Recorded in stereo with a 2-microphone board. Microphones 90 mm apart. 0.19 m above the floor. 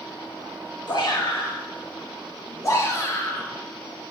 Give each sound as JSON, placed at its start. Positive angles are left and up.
{"t": 0.9, "sound": "a shout", "side_deg": 55, "distance_m": 3.5}